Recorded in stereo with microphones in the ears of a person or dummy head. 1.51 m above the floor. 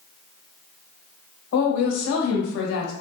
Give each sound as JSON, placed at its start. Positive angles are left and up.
{"t": 1.5, "sound": "a woman speaking", "side_deg": 80, "distance_m": 1.1}